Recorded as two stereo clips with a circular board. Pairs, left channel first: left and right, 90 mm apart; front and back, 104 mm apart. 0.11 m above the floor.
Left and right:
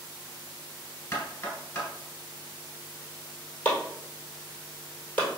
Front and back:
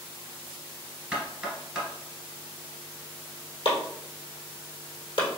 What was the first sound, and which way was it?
Knocking, 105° left.